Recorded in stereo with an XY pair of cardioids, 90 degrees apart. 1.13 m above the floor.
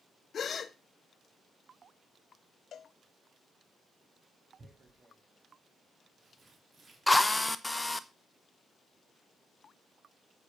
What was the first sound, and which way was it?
A gasp, 55° left.